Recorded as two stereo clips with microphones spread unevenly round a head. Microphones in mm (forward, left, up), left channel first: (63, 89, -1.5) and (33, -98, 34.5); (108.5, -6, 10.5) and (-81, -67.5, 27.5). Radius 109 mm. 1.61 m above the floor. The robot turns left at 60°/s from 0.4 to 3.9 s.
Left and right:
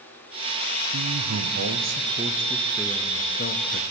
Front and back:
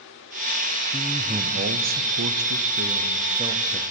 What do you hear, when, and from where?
0.9 s a man speaking: 80° right, 0.6 m; by 3.9 s 100° left, 0.6 m